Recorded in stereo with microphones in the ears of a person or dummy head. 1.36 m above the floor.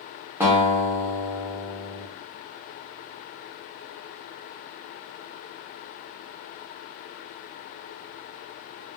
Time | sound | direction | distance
0.4 | a guitar | 5° right (ahead or behind) | 0.5 m